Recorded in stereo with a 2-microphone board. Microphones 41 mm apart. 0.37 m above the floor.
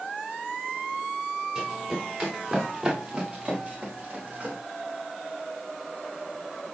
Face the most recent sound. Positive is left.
turn(degrees=-40)  # may be behind; listen again after turning